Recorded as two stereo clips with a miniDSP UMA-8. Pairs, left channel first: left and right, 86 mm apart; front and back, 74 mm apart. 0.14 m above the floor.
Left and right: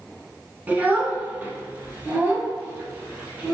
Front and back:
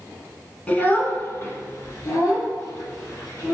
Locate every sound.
0.7 s a child speaking: 50° right, 1.0 m; by 3.5 s 20° right, 2.5 m